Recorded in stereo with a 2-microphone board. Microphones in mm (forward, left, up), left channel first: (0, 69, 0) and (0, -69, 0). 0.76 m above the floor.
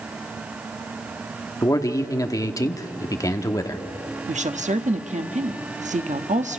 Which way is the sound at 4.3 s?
60° right (ahead or behind).